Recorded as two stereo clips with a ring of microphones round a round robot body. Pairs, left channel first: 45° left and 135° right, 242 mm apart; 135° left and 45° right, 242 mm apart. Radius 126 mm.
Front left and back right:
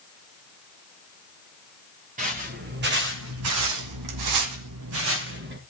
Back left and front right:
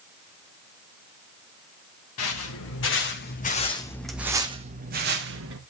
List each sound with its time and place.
2.2 s footsteps: 165° left, 3 m; by 5.6 s 85° right, 2.5 m